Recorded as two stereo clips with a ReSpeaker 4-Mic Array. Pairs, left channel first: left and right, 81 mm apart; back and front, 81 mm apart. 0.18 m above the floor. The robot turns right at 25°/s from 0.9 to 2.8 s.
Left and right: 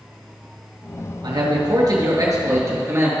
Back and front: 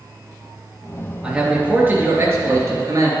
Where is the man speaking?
75° right, 3 m; by 3.1 s 40° right, 3 m.